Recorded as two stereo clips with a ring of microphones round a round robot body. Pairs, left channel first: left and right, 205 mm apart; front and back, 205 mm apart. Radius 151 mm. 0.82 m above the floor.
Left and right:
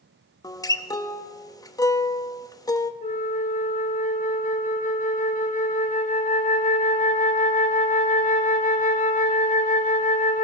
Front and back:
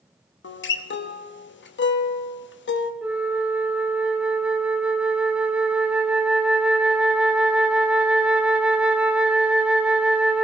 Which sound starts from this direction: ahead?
A guitar, at 0.4 s.